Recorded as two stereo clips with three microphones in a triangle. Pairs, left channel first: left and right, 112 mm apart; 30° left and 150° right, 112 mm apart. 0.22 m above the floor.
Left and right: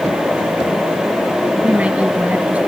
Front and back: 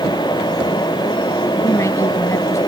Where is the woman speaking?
15° right.